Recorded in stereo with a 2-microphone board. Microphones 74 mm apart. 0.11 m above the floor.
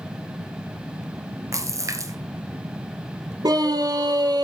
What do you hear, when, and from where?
1.5 s a splash: 45° right (ahead or behind), 1.5 m
3.4 s a scream: 65° right (ahead or behind), 2.5 m